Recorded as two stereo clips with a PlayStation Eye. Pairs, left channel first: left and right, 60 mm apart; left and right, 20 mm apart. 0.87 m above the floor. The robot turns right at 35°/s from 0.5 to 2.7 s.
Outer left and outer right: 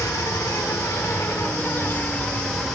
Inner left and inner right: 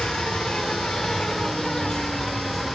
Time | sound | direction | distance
0.0 | an insect | 95° left | 1.5 m